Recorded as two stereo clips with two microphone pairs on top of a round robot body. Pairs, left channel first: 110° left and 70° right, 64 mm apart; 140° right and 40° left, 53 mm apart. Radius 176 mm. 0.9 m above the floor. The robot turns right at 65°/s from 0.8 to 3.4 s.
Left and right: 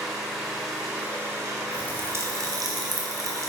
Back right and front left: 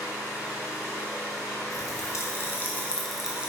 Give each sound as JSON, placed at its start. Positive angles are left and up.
{"t": 0.0, "sound": "an engine running", "azimuth_deg": -155, "distance_m": 1.1}
{"t": 1.7, "sound": "a pop", "azimuth_deg": -145, "distance_m": 1.5}